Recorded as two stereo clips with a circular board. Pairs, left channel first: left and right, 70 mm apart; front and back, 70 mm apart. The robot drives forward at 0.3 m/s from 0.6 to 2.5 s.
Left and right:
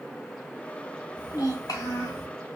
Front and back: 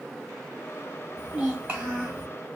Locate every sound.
1.2 s a child speaking: 100° left, 1.1 m; by 2.3 s 120° left, 1.2 m